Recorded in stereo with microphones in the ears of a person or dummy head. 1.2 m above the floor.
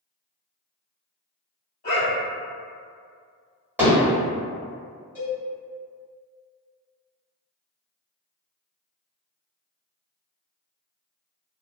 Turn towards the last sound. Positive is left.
turn(degrees=10)  # may be behind; listen again after turning